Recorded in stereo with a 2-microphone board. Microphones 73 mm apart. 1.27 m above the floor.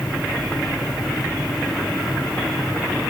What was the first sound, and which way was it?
Only background noise.